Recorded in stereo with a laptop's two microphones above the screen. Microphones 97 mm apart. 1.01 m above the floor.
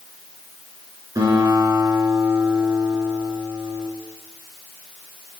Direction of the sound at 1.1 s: 40° right (ahead or behind).